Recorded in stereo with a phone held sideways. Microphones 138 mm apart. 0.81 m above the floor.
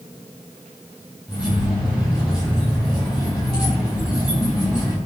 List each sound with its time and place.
1.3 s keys jangling: 5° right (ahead or behind), 4.5 m